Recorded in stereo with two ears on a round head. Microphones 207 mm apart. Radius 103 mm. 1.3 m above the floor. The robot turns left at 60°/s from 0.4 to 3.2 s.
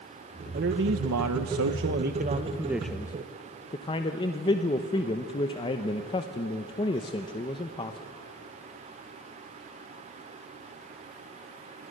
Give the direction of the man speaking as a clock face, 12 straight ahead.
1 o'clock.